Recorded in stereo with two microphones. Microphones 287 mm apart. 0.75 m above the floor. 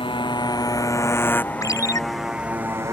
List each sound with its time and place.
0.0 s a motorcycle: 15° left (ahead or behind); by 2.9 s 10° right (ahead or behind)
1.6 s a ringtone: 10° left (ahead or behind)